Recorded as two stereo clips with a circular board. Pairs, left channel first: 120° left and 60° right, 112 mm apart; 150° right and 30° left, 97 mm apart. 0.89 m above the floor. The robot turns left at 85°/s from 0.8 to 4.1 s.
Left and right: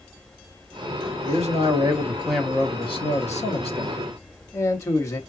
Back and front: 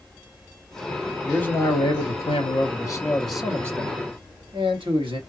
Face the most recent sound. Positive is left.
turn(degrees=55)